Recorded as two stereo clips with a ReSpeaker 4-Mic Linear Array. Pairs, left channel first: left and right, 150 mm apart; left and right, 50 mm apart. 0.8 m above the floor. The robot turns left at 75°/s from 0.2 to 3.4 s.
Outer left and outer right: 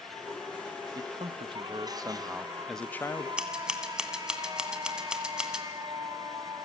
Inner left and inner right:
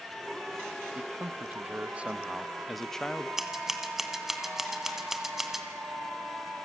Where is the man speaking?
50° right, 0.7 m; by 3.3 s 135° left, 0.7 m.